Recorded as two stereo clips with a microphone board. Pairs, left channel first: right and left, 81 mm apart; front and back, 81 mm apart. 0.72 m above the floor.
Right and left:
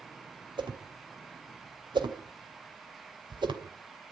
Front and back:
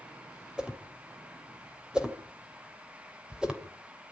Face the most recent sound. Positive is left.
turn(degrees=100)